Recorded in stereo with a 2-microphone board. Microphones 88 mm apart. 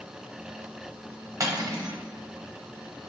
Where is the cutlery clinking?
35° right (ahead or behind), 0.7 m.